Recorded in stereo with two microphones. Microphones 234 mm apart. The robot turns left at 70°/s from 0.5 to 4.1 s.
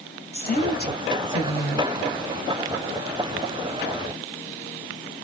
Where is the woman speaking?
105° left, 1.6 m; by 1.9 s 5° left, 1.6 m.